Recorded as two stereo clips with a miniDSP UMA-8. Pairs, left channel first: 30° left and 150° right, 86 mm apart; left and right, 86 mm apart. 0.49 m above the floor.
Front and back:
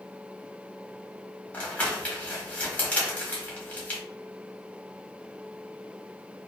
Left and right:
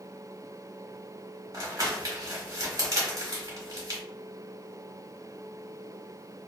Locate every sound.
1.5 s crumpling: 45° right, 1.0 m